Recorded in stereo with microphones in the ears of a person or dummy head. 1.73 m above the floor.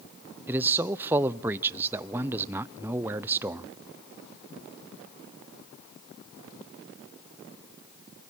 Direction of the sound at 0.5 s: 10° right (ahead or behind).